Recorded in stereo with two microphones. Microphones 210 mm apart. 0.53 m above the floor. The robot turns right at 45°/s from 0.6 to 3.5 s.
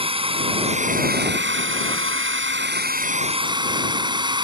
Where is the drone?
155° right; by 4.5 s 20° right.